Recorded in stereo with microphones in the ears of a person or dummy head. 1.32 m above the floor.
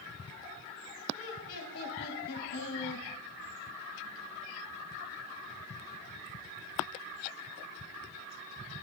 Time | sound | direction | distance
1.1 | laughter | 45° left (ahead or behind) | 2.5 m